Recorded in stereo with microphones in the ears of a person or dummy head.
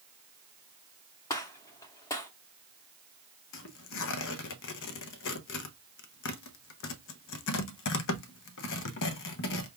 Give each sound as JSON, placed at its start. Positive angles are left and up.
{"t": 1.3, "sound": "a gunshot", "side_deg": 20, "distance_m": 0.7}
{"t": 3.5, "sound": "tearing paper", "side_deg": 65, "distance_m": 0.8}